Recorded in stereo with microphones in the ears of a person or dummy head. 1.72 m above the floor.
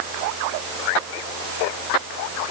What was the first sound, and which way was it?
Only background noise.